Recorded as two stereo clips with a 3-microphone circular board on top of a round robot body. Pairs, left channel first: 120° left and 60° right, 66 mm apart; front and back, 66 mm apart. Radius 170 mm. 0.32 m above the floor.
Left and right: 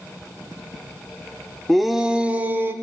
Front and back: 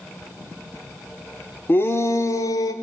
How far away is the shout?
About 1.1 m.